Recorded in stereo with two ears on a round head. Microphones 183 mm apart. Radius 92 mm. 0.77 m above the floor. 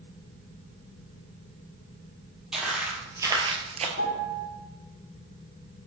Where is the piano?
60° left (ahead or behind), 1.6 m.